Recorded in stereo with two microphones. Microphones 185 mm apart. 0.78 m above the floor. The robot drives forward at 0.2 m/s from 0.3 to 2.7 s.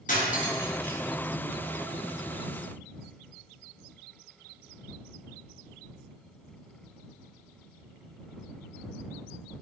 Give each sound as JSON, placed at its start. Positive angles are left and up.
{"t": 0.1, "sound": "cutlery clinking", "side_deg": 50, "distance_m": 0.6}